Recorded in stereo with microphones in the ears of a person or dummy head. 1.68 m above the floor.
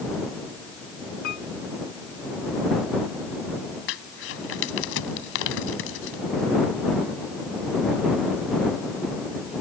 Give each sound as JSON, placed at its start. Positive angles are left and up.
{"t": 1.2, "sound": "a piano", "side_deg": 65}
{"t": 3.9, "sound": "crumpling", "side_deg": 65}